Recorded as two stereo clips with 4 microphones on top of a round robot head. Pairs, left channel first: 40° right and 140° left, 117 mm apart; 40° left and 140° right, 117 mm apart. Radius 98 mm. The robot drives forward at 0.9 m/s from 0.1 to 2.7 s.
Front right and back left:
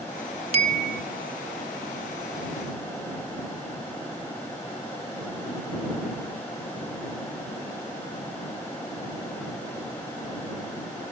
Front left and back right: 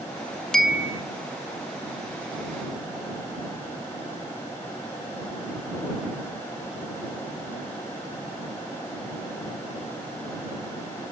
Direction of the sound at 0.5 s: 120° left.